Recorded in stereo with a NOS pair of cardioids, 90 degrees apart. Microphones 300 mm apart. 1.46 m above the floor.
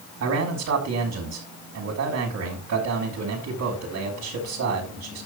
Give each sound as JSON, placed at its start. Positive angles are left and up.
{"t": 0.2, "sound": "a man speaking", "azimuth_deg": -60, "distance_m": 4.5}